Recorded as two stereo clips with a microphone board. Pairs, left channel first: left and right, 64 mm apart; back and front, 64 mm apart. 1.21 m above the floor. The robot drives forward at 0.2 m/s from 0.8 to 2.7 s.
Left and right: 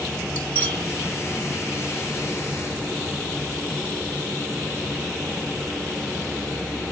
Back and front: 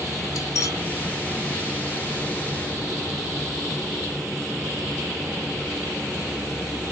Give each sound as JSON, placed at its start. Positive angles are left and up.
{"t": 0.3, "sound": "cutlery clinking", "azimuth_deg": 145, "distance_m": 1.2}